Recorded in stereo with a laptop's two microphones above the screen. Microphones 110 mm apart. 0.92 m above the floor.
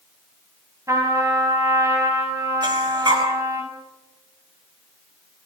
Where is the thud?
I don't hear a thud.